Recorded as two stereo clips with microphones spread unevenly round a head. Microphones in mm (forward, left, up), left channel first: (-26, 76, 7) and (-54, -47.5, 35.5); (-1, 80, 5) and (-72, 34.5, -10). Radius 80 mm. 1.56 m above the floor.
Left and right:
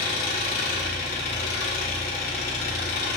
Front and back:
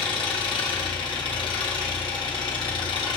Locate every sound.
0.0 s an engine running: 60° left, 1.7 m